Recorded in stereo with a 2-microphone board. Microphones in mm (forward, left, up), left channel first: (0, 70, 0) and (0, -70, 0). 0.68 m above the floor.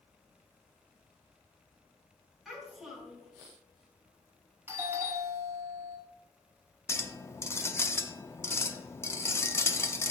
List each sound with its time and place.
2.5 s a child speaking: centre (ahead or behind), 4.5 m
4.7 s a doorbell: 20° right (ahead or behind), 1.6 m
6.9 s a clink: 20° left (ahead or behind), 0.6 m